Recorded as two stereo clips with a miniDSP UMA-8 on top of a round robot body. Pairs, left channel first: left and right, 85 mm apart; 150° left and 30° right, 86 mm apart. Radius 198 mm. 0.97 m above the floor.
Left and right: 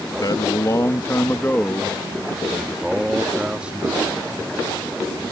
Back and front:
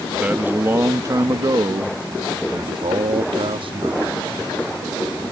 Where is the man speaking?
45° left; by 5.2 s 20° right.